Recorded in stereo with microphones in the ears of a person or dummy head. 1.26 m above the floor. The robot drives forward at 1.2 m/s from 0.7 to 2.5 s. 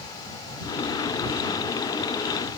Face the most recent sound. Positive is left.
No sound to turn to.